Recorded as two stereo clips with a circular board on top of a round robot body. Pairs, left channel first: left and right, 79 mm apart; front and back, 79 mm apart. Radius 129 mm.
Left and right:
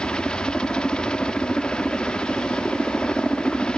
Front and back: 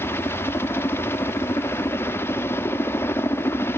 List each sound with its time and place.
0.0 s a helicopter: 20° left